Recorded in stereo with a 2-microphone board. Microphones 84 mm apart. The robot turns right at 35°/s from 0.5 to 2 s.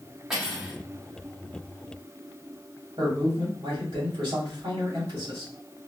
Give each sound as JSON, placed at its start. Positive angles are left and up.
{"t": 0.3, "sound": "cutlery clinking", "side_deg": -5, "distance_m": 1.7}
{"t": 3.0, "sound": "a man speaking", "side_deg": -70, "distance_m": 2.0}